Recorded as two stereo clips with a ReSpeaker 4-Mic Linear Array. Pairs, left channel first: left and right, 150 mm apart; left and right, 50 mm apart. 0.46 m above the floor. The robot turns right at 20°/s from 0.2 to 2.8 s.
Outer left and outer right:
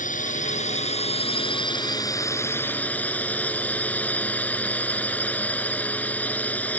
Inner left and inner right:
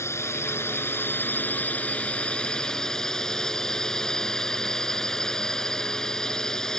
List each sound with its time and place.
0.0 s a drone: 115° left; by 6.8 s 170° left